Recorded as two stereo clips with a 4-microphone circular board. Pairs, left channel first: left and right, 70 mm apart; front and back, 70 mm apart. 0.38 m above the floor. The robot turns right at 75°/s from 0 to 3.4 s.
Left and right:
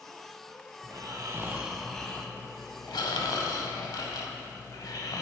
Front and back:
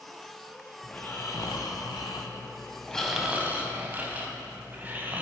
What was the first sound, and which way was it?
Snoring, 80° right.